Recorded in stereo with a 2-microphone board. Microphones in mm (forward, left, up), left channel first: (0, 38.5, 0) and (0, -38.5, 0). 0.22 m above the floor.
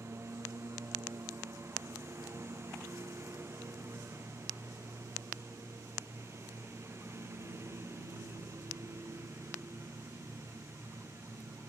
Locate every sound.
0.0 s a lawn mower: 35° right (ahead or behind)